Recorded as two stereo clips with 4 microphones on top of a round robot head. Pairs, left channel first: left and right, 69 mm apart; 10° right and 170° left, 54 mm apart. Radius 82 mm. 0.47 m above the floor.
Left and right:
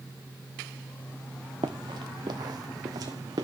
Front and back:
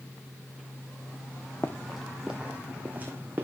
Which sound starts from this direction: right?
Running footsteps, at 1.6 s.